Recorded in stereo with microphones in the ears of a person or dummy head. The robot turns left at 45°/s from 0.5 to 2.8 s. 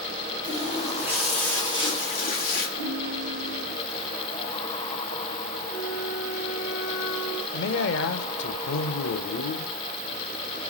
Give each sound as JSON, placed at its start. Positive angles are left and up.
{"t": 0.4, "sound": "a running tap", "azimuth_deg": -145, "distance_m": 2.5}
{"t": 2.8, "sound": "a ringtone", "side_deg": 75, "distance_m": 3.5}
{"t": 5.7, "sound": "a flute", "side_deg": 60, "distance_m": 3.5}
{"t": 7.5, "sound": "a man speaking", "side_deg": 65, "distance_m": 1.1}